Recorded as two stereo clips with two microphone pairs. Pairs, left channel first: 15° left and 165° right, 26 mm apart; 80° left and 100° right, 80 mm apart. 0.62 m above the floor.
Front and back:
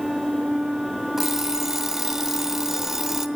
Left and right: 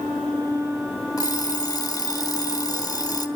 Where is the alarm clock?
120° left, 1.1 m.